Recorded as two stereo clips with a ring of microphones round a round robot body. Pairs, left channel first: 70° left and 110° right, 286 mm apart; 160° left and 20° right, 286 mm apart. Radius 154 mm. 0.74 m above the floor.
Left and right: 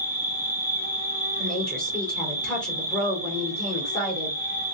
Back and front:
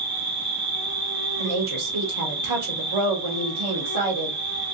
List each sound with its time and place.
0.0 s an insect: 10° left, 2.5 m
1.4 s a woman speaking: 20° right, 2 m